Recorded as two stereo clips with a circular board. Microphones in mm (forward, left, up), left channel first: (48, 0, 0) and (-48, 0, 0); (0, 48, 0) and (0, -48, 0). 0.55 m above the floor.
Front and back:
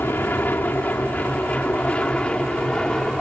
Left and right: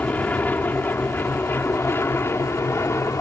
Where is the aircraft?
35° left; by 3.2 s 75° left.